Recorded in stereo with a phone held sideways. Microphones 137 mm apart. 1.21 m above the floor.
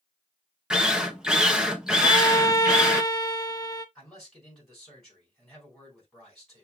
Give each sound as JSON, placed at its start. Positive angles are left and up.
{"t": 0.7, "sound": "a drill", "side_deg": -5, "distance_m": 0.8}
{"t": 2.0, "sound": "a violin", "side_deg": 30, "distance_m": 0.8}
{"t": 4.0, "sound": "a man speaking", "side_deg": 5, "distance_m": 4.5}